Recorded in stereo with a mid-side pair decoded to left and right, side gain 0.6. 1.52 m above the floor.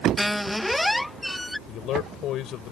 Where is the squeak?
5° left.